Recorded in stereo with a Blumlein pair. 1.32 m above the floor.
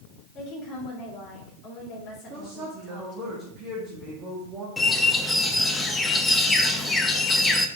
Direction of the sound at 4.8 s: 10° left.